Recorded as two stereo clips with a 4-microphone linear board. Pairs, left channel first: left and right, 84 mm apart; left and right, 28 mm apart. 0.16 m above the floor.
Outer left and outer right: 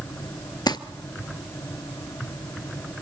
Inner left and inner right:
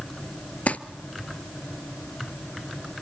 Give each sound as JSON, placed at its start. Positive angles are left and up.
{"t": 0.7, "sound": "crumpling", "side_deg": 55, "distance_m": 0.7}